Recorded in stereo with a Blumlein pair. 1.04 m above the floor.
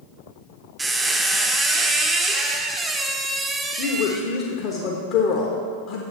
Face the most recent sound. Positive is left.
turn(degrees=40)